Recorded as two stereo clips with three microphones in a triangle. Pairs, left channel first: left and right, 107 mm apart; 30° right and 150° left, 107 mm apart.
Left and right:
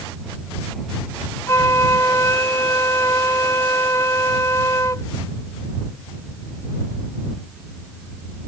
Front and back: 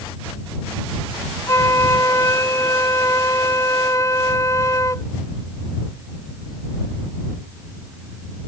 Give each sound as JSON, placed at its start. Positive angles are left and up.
{"t": 1.5, "sound": "a flute", "azimuth_deg": 30}